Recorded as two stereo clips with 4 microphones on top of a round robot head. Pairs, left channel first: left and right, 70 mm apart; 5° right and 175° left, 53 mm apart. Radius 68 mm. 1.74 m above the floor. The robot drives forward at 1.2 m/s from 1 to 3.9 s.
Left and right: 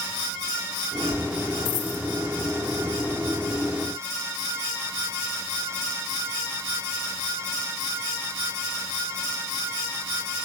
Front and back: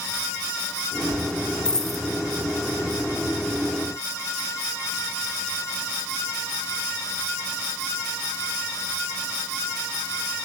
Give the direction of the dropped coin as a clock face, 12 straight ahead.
10 o'clock.